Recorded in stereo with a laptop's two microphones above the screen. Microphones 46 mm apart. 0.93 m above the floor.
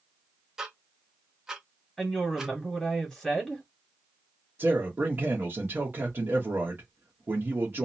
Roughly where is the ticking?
Centre.